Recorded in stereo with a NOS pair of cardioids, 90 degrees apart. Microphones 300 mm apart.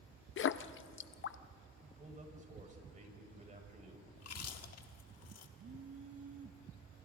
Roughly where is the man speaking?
Ahead right.